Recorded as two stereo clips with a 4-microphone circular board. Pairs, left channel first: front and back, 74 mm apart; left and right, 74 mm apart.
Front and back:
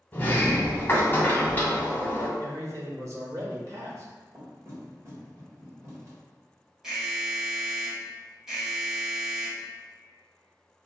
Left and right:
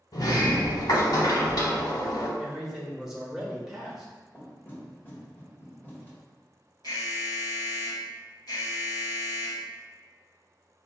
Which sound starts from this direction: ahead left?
A sliding door, at 0.1 s.